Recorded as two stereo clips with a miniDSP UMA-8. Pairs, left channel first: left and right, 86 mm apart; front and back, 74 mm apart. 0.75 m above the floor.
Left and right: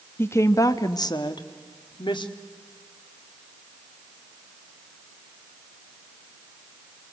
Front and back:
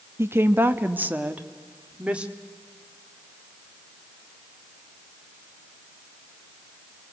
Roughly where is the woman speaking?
Behind left.